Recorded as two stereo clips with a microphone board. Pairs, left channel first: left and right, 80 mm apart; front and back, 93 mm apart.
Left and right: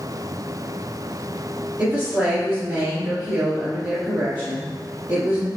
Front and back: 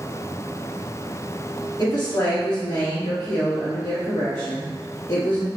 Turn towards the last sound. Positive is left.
turn(degrees=-35)